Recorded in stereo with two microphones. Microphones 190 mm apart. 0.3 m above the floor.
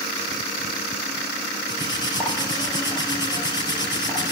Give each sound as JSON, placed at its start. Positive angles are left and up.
{"t": 1.7, "sound": "cutlery clinking", "side_deg": 20, "distance_m": 3.5}